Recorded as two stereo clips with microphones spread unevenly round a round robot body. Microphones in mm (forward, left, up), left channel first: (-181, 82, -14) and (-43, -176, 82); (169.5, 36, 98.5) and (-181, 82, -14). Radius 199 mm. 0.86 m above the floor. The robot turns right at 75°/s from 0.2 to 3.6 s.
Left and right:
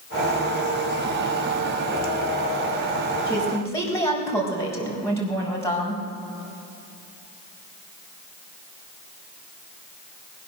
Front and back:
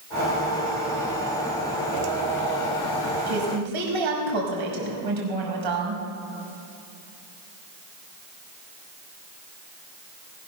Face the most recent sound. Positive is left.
turn(degrees=-165)